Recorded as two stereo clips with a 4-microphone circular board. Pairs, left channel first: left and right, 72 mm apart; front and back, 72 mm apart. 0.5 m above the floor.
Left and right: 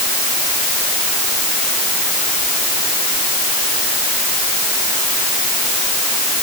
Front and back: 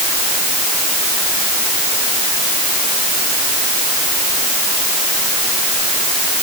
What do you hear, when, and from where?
Only background noise.